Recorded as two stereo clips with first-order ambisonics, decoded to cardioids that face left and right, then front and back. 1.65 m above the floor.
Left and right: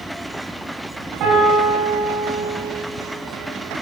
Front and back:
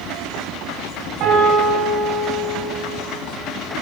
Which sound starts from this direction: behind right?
A piano, at 1.2 s.